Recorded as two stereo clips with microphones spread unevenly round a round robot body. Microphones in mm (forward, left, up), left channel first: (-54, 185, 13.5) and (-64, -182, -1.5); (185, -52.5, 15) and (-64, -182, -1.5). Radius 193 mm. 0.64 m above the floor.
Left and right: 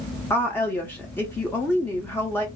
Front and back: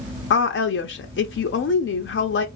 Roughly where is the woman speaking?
Ahead.